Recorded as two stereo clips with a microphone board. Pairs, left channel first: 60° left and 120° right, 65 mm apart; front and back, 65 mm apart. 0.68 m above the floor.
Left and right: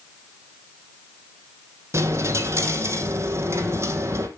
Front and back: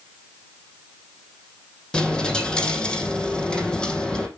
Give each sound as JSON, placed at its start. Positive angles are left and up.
{"t": 1.9, "sound": "a dropped coin", "azimuth_deg": -75, "distance_m": 2.5}